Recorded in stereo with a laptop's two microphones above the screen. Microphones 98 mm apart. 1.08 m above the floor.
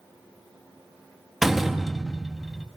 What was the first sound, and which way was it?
A door slam, centre (ahead or behind).